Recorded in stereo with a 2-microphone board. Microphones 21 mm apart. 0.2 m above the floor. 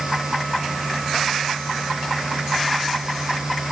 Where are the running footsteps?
I don't hear running footsteps.